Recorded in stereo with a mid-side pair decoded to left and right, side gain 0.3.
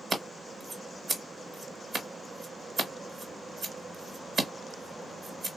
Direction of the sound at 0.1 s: 70° right.